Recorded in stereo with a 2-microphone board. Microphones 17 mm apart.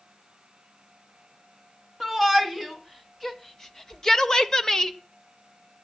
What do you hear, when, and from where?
2.0 s a shout: 15° left (ahead or behind), 3.5 m; by 5.0 s 30° left (ahead or behind), 1.2 m